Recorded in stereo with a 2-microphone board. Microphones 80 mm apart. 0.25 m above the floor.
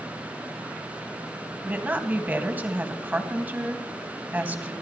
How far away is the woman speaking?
About 1.7 m.